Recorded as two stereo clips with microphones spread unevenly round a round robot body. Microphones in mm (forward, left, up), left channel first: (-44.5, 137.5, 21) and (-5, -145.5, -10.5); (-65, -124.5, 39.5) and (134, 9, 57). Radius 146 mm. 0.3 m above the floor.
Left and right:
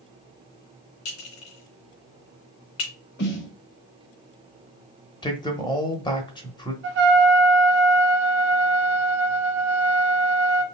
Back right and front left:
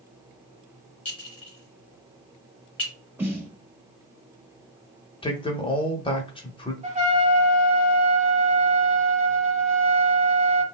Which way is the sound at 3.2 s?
115° left.